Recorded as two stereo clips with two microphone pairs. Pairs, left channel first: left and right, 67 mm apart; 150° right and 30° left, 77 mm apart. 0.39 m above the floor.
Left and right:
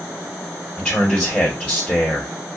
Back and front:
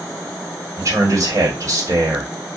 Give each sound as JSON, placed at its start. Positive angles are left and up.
{"t": 0.8, "sound": "a man speaking", "azimuth_deg": 15, "distance_m": 1.9}